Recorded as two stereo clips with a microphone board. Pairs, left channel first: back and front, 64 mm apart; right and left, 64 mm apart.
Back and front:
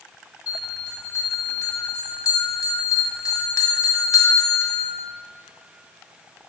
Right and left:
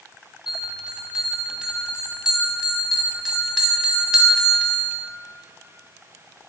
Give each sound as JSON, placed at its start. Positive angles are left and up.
{"t": 0.5, "sound": "a bell", "azimuth_deg": 170, "distance_m": 0.6}